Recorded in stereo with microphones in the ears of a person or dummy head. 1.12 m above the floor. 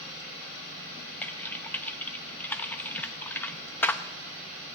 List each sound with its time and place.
1.2 s typing on a keyboard: 15° left (ahead or behind), 0.7 m